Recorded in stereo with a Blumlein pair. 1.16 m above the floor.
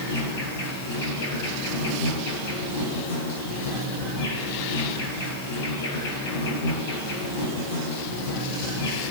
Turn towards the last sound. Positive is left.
turn(degrees=50)